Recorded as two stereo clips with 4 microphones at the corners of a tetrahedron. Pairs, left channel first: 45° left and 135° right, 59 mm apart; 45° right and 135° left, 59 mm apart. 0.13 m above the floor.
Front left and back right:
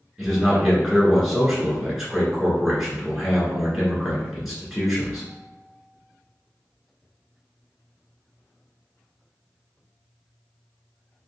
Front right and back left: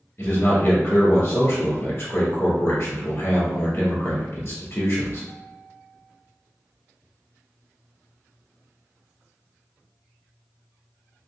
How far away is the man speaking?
About 1.6 m.